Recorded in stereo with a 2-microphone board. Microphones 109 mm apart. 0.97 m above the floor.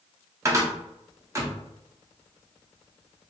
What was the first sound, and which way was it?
A cupboard door, 25° right (ahead or behind).